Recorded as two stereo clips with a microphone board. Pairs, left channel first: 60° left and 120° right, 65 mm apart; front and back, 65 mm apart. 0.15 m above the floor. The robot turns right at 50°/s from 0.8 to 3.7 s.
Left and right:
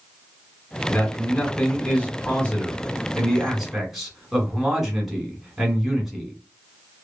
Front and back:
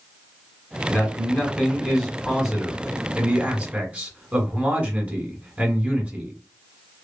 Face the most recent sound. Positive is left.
turn(degrees=160)